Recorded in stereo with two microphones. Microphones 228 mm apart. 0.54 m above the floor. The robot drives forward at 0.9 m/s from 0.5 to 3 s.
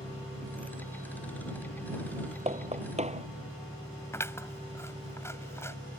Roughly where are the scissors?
Centre.